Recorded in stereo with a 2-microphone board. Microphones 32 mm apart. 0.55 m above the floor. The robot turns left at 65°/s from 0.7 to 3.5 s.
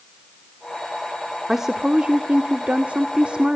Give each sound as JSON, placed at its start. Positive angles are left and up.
{"t": 1.5, "sound": "a woman speaking", "azimuth_deg": -10, "distance_m": 1.3}